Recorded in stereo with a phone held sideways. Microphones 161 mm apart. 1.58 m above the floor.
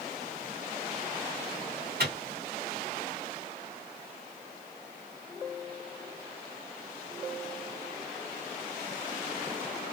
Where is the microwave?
75° right (ahead or behind), 1.8 m.